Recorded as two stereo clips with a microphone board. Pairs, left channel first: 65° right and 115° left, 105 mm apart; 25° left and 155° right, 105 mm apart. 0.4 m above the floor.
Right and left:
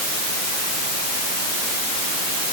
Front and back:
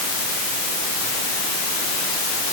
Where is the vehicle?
No vehicle in this recording.